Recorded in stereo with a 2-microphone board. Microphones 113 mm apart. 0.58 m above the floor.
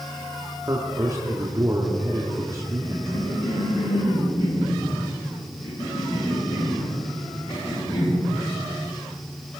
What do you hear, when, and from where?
0.6 s a man speaking: 30° right (ahead or behind), 1.4 m
2.8 s a cough: 55° left (ahead or behind), 7 m